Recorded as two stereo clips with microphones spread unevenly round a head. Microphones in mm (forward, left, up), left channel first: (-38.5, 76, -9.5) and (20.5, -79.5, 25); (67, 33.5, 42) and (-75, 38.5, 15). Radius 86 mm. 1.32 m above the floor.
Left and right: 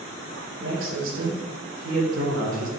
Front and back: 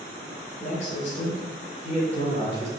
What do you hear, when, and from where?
0.6 s a man speaking: 50° right, 4.5 m; by 2.7 s 65° right, 4 m